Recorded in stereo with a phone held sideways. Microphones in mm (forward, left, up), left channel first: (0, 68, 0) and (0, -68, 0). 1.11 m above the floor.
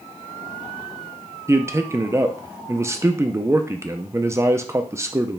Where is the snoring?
I don't hear snoring.